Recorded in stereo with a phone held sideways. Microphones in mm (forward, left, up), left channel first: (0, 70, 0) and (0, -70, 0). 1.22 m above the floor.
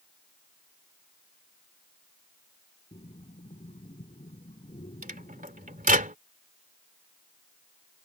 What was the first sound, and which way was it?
Breathing, 60° left (ahead or behind).